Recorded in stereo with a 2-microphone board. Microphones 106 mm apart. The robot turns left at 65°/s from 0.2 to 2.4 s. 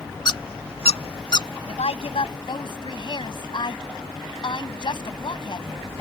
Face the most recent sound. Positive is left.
turn(degrees=55)